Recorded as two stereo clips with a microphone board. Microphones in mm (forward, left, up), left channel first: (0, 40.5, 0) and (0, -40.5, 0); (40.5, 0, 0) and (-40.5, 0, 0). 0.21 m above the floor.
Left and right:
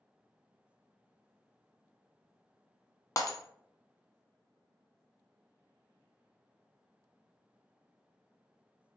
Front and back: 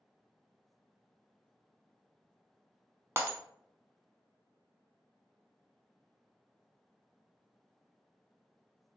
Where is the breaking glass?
130° left, 0.5 m.